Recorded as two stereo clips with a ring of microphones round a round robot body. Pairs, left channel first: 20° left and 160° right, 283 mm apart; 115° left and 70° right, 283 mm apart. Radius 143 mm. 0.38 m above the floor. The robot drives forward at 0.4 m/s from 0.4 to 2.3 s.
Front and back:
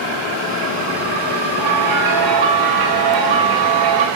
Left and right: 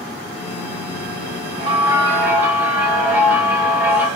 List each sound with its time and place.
1.6 s a bell: 135° right, 0.5 m; by 4.1 s 150° right, 0.7 m